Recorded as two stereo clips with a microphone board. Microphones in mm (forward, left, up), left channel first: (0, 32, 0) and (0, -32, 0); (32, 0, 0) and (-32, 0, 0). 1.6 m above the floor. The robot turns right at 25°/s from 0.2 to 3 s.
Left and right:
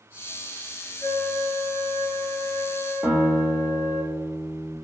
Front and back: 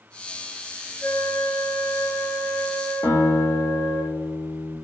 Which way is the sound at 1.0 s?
70° left.